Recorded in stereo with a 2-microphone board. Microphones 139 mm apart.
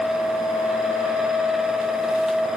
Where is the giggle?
I don't hear a giggle.